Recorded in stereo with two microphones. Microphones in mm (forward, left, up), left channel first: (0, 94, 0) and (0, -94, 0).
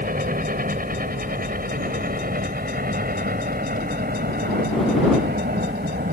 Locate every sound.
0.0 s a helicopter: 50° right (ahead or behind); by 6.1 s 55° right (ahead or behind)